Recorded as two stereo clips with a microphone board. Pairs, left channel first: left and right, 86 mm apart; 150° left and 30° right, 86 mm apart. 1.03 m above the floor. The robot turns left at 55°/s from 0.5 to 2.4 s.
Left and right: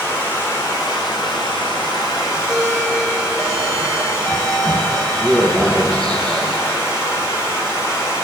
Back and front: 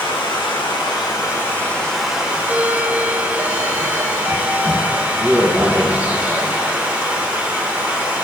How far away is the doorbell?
About 0.5 m.